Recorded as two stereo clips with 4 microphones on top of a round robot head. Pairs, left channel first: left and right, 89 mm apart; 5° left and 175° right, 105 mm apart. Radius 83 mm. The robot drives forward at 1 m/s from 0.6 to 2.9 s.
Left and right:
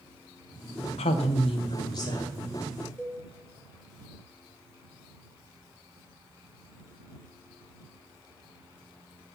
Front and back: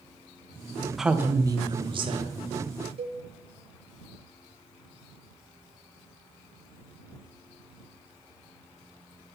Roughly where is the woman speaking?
Left.